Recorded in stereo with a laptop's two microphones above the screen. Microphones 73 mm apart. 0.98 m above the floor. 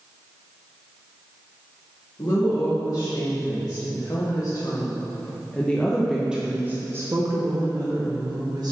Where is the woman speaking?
70° left (ahead or behind), 2 m; by 8.7 s 60° right (ahead or behind), 1.5 m.